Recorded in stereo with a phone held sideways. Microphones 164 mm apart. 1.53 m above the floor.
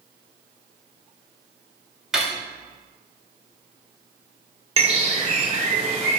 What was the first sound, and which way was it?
Cutlery clinking, 5° right (ahead or behind).